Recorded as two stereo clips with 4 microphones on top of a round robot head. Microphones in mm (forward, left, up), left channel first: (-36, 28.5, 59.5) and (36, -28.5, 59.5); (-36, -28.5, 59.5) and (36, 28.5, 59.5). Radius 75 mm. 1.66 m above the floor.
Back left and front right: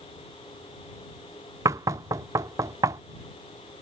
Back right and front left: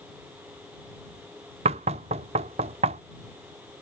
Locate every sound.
1.6 s knocking: 20° left